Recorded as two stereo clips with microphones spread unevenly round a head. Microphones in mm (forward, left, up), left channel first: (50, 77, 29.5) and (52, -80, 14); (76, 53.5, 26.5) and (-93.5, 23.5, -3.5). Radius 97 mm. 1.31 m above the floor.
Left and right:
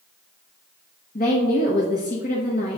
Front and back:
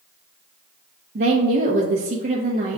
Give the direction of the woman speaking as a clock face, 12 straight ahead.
7 o'clock.